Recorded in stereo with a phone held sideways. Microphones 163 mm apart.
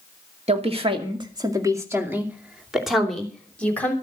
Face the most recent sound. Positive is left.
turn(degrees=10)  # may be behind; listen again after turning